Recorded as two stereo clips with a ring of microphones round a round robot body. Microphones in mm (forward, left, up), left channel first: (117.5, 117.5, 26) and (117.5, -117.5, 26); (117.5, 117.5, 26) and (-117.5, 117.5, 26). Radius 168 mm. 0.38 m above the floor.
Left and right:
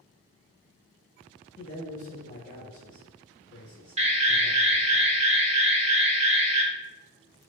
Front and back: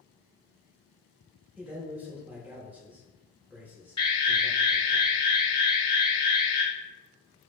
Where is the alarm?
55° right, 0.5 m.